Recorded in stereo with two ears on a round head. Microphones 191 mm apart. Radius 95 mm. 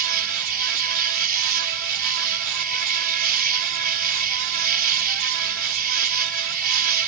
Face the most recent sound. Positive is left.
turn(degrees=-45)  # may be behind; listen again after turning